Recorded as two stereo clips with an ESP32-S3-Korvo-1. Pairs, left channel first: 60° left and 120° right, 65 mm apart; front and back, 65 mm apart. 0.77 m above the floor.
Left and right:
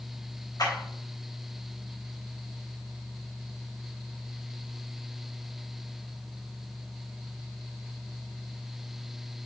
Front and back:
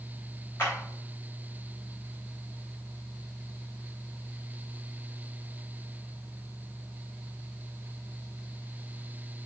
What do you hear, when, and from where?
0.6 s a clap: 50° left, 4 m